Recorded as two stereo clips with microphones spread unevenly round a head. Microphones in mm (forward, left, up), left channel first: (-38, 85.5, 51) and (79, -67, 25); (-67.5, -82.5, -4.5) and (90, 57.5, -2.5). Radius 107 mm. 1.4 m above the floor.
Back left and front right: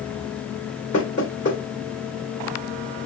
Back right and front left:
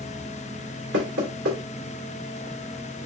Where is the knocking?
75° left, 2.5 m.